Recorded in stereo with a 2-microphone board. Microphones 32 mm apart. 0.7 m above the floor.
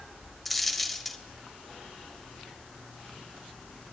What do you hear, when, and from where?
0.5 s a dropped coin: 5° left (ahead or behind), 0.5 m